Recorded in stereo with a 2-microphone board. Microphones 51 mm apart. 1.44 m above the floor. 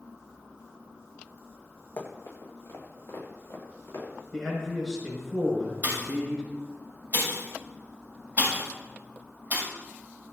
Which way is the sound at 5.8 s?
35° right (ahead or behind).